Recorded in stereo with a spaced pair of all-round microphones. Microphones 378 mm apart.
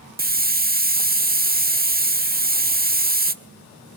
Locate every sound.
0.2 s a hiss: 25° right (ahead or behind), 1.1 m